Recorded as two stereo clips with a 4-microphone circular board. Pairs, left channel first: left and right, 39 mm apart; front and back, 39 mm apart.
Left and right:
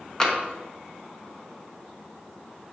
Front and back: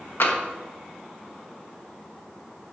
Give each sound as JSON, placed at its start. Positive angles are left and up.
{"t": 0.2, "sound": "tapping", "azimuth_deg": 15, "distance_m": 1.3}